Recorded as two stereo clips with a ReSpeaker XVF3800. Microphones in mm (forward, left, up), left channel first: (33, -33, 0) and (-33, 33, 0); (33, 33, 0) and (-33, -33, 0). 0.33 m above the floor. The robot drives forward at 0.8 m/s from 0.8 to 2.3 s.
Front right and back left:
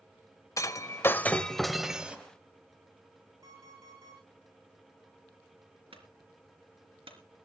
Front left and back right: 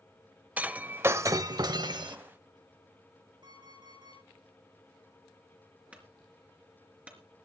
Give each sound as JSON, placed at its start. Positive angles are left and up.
{"t": 0.6, "sound": "breaking glass", "azimuth_deg": -70, "distance_m": 0.9}
{"t": 3.4, "sound": "an alarm clock", "azimuth_deg": -170, "distance_m": 9.5}
{"t": 5.9, "sound": "a clunk", "azimuth_deg": 150, "distance_m": 3.5}